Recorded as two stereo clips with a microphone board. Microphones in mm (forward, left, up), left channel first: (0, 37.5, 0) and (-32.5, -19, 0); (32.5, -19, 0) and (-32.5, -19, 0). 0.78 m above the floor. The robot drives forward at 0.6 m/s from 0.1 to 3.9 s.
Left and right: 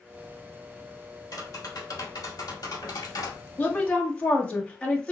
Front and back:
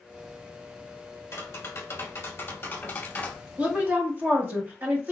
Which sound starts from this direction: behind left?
A woman speaking, at 3.6 s.